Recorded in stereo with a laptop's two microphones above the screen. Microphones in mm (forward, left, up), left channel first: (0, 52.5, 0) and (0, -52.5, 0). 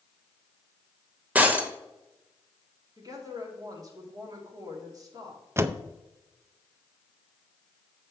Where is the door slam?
25° right (ahead or behind), 0.5 m.